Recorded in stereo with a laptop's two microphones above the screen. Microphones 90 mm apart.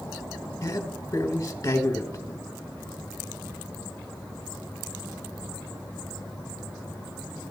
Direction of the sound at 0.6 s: 40° left (ahead or behind).